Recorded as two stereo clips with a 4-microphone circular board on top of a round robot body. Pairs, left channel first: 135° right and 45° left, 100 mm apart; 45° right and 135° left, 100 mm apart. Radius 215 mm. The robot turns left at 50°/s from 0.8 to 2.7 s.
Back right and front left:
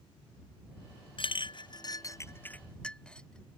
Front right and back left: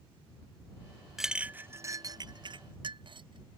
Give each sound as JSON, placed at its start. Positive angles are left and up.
{"t": 1.2, "sound": "a clink", "azimuth_deg": -140}